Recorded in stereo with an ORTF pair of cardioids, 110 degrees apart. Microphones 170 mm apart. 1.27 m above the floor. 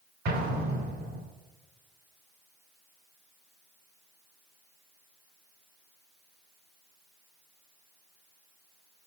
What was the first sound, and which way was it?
An explosion, 65° right.